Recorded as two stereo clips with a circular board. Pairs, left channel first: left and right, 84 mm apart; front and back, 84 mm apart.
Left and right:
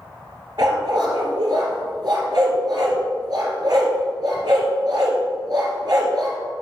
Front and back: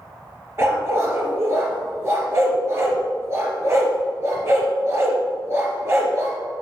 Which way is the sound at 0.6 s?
125° right.